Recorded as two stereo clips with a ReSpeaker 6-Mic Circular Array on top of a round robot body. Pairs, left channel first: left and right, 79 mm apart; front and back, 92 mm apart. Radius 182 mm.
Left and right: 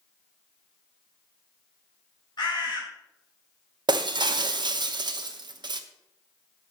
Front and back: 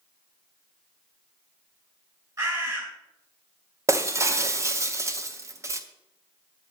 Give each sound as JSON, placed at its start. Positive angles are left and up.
{"t": 2.4, "sound": "a bird", "azimuth_deg": 130, "distance_m": 3.5}
{"t": 3.9, "sound": "breaking glass", "azimuth_deg": -120, "distance_m": 0.9}